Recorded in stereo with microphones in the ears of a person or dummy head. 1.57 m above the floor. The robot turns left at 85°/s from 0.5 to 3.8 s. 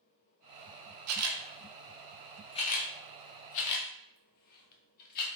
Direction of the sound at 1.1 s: 80° right.